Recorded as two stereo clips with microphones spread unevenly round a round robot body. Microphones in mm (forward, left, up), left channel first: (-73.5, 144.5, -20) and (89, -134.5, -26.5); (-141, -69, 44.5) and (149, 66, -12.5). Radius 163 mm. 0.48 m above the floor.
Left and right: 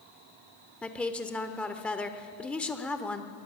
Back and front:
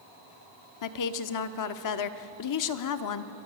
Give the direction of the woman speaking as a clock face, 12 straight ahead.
5 o'clock.